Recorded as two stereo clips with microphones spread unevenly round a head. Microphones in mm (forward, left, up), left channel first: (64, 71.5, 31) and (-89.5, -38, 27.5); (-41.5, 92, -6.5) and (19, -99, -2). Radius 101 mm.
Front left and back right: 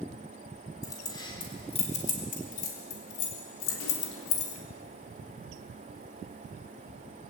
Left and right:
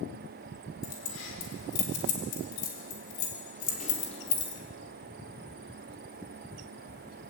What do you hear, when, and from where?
0.8 s keys jangling: 110° left, 4.5 m; by 4.6 s 35° left, 4 m